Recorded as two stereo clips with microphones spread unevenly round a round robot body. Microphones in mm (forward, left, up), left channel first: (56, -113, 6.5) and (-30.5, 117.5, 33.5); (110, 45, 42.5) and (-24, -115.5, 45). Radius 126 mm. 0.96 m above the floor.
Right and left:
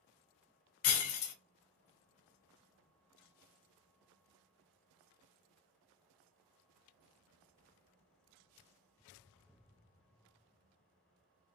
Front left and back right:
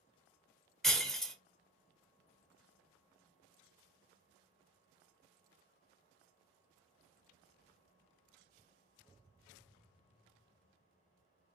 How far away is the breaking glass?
About 0.7 m.